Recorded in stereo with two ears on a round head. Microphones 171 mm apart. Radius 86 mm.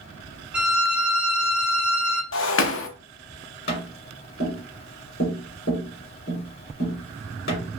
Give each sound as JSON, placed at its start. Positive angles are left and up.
{"t": 0.5, "sound": "a violin", "side_deg": -5, "distance_m": 0.8}
{"t": 2.3, "sound": "breaking glass", "side_deg": 65, "distance_m": 0.6}
{"t": 3.7, "sound": "tapping", "side_deg": 55, "distance_m": 1.9}